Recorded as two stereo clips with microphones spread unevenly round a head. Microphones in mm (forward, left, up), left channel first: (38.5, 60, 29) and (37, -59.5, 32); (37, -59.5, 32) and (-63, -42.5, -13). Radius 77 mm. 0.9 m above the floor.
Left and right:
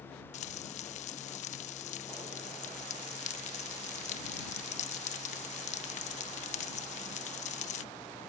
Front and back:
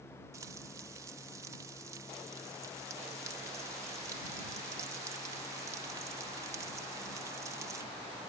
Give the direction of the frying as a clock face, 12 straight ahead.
8 o'clock.